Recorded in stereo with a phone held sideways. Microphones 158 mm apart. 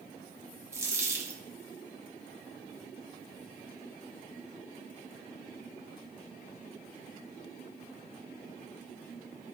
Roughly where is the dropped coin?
Centre.